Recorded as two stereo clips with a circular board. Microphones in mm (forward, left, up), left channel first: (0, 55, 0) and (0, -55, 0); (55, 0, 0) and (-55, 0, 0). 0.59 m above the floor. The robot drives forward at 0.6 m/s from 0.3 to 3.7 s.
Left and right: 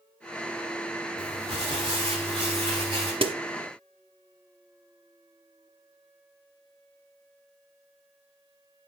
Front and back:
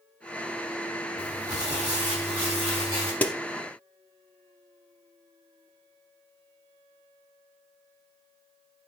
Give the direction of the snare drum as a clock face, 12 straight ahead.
2 o'clock.